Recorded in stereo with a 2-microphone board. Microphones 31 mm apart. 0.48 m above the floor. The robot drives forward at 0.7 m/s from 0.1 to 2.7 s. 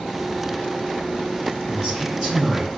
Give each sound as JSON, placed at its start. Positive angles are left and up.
{"t": 1.7, "sound": "a man speaking", "side_deg": 10, "distance_m": 2.0}